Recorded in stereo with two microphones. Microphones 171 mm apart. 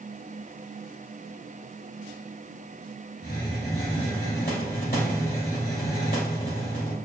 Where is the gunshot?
No gunshot in this recording.